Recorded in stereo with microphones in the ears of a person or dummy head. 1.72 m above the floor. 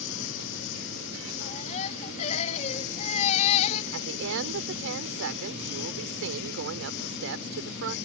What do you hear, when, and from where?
0.0 s a lawn mower: 75° left (ahead or behind); by 8.1 s 65° left (ahead or behind)
1.4 s a baby crying: 40° left (ahead or behind)
3.9 s a woman speaking: 75° right (ahead or behind)